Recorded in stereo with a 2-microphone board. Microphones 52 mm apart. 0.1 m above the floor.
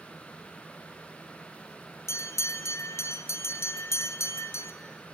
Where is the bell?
65° left (ahead or behind), 1.1 m.